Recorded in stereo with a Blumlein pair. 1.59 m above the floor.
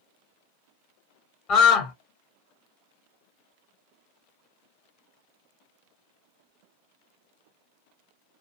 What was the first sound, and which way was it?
A scream, 30° left.